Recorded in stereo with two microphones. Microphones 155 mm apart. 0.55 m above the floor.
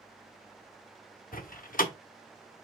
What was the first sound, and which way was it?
A door slam, 65° left (ahead or behind).